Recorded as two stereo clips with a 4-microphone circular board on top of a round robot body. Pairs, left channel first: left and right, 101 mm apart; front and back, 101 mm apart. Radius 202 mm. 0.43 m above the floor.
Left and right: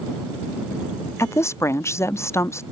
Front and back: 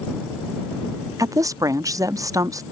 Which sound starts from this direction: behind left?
A woman speaking, at 1.2 s.